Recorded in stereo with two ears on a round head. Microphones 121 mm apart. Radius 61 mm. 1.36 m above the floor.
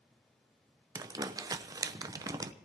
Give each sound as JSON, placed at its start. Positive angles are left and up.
{"t": 0.9, "sound": "crumpling", "side_deg": -25, "distance_m": 0.8}